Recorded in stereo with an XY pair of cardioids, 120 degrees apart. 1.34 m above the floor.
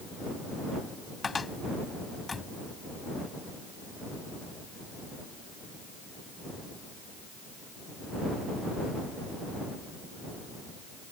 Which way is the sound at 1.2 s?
25° left.